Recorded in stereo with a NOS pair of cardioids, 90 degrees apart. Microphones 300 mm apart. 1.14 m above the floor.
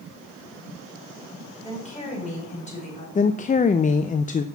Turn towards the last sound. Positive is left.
turn(degrees=25)